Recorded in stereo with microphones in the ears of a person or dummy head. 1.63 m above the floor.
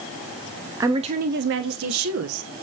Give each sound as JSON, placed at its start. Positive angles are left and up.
{"t": 0.8, "sound": "a woman speaking", "side_deg": -15, "distance_m": 0.9}